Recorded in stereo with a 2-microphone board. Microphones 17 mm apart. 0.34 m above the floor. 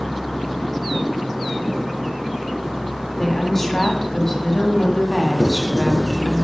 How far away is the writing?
About 3 m.